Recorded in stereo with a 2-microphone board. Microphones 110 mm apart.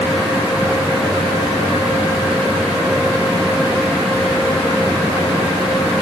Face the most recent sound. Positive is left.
No sound to turn to.